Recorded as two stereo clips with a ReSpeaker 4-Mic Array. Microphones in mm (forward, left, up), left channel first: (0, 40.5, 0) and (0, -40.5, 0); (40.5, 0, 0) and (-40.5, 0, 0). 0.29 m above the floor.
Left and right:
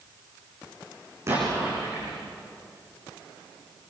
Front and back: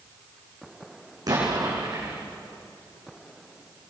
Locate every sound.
1.3 s an explosion: 145° right, 10 m